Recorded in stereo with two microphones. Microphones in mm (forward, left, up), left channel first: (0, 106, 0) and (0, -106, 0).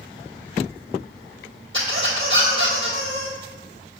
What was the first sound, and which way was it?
A squeak, 65° right (ahead or behind).